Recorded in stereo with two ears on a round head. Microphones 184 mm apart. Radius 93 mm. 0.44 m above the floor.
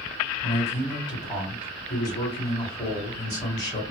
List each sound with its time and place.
0.4 s a man speaking: 20° left (ahead or behind), 1.6 m